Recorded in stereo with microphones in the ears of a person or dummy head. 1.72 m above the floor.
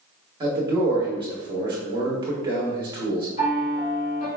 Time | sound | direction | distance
0.4 | a man speaking | 20° right (ahead or behind) | 1.0 m
3.4 | a piano | 45° left (ahead or behind) | 2.0 m